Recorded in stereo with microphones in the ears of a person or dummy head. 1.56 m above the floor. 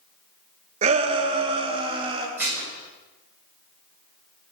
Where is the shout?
35° right (ahead or behind), 1.4 m; by 2.3 s 25° right (ahead or behind), 2.5 m.